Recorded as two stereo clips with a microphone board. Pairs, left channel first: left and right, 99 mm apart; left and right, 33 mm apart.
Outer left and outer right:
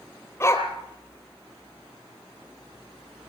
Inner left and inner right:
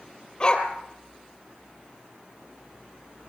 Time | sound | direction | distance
0.4 | a dog barking | 25° left (ahead or behind) | 2.5 m